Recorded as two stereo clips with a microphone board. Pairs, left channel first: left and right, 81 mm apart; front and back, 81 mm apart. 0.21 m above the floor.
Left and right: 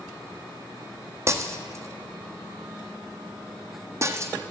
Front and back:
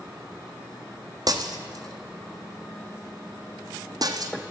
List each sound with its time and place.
1.3 s breaking glass: 145° right, 1.2 m